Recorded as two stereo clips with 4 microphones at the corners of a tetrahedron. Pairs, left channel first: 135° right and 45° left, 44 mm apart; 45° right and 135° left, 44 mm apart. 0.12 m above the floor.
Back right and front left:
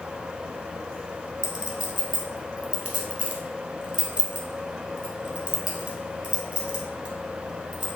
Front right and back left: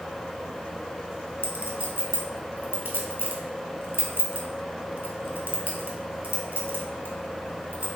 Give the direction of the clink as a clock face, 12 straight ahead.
9 o'clock.